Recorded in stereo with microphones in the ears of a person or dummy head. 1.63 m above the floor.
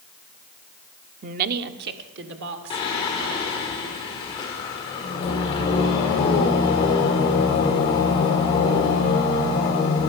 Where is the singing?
20° left (ahead or behind), 1.6 m.